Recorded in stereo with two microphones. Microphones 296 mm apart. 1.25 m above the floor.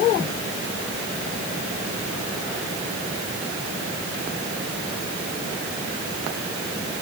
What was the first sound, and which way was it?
Only background noise.